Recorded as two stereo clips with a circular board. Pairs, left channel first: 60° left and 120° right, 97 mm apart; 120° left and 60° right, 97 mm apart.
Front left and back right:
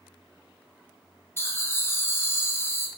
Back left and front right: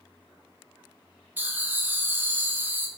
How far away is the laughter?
About 0.6 m.